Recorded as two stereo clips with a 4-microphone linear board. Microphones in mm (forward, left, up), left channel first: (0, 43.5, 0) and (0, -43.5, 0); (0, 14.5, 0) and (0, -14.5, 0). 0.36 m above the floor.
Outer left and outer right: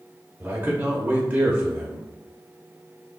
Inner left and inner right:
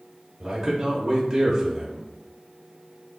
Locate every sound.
0.4 s a man speaking: 20° right (ahead or behind), 0.9 m